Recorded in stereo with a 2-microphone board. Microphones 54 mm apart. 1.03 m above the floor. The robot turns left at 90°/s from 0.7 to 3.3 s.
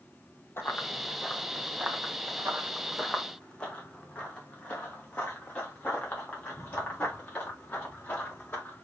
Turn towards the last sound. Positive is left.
turn(degrees=30)  # may be behind; listen again after turning